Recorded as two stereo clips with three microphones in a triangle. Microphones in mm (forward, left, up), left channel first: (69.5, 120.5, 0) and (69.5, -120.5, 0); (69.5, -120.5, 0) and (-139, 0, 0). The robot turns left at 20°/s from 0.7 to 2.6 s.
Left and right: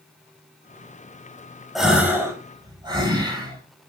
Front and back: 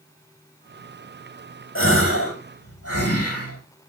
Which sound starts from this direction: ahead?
A gasp, at 1.8 s.